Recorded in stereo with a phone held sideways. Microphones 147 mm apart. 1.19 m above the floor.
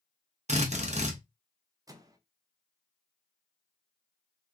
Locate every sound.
0.5 s a drill: 50° right (ahead or behind), 0.9 m
1.9 s a microwave: 25° right (ahead or behind), 0.5 m